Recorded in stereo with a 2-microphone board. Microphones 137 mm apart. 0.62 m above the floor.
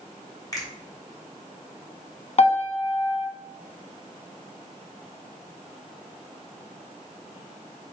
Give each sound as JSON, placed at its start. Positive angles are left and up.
{"t": 0.5, "sound": "a finger snap", "side_deg": 25, "distance_m": 2.5}
{"t": 2.4, "sound": "a piano", "side_deg": 50, "distance_m": 0.9}